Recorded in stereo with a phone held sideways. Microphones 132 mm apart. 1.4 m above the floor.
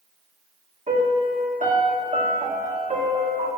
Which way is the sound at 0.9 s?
65° right (ahead or behind).